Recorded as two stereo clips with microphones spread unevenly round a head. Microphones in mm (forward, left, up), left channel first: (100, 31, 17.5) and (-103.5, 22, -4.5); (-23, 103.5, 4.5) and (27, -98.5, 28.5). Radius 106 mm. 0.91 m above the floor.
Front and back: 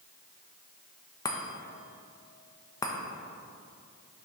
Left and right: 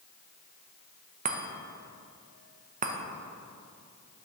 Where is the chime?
65° right, 0.8 m.